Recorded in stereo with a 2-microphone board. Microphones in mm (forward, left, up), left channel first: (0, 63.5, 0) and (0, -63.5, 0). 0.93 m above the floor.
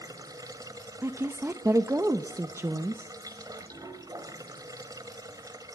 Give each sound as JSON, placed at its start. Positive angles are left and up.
{"t": 0.0, "sound": "running water", "side_deg": -30, "distance_m": 2.0}
{"t": 1.0, "sound": "a woman speaking", "side_deg": -20, "distance_m": 0.7}